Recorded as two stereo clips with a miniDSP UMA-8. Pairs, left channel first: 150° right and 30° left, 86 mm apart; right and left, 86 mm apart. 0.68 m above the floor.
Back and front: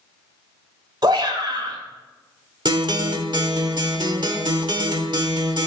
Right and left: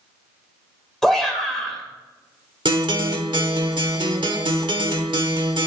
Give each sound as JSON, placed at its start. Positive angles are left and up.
{"t": 1.0, "sound": "a shout", "azimuth_deg": -5, "distance_m": 2.5}
{"t": 2.6, "sound": "a guitar", "azimuth_deg": 65, "distance_m": 1.0}